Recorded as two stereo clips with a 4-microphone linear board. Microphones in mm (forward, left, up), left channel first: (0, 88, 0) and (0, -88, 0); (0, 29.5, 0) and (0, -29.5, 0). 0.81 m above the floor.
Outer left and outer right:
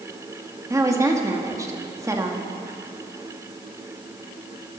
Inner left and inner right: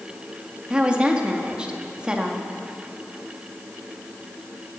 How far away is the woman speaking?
About 1.7 m.